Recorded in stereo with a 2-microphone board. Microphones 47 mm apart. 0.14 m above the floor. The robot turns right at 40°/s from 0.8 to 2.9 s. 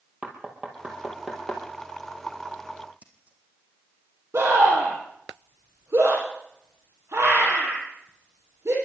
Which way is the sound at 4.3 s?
65° right (ahead or behind).